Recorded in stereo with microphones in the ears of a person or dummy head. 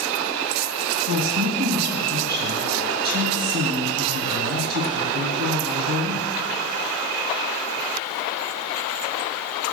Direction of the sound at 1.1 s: 45° right (ahead or behind).